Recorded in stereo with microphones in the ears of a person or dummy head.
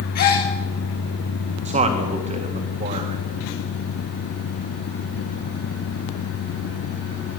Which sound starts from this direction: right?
A man speaking, at 1.6 s.